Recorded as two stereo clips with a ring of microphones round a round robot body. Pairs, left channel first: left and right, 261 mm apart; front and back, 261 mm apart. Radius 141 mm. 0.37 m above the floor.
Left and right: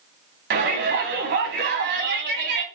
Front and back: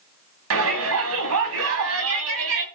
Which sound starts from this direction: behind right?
A shout, at 0.5 s.